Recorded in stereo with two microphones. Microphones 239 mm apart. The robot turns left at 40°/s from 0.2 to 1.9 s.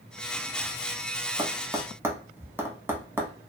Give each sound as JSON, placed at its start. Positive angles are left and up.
{"t": 1.4, "sound": "tapping", "side_deg": -20, "distance_m": 0.6}